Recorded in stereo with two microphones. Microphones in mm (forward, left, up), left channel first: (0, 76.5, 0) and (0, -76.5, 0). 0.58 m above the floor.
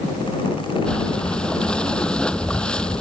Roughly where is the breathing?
Centre.